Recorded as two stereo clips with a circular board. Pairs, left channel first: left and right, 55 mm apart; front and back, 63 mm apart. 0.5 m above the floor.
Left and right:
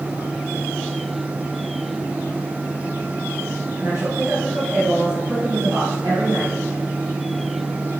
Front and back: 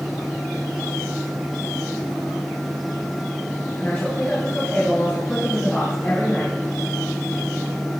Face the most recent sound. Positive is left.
turn(degrees=-60)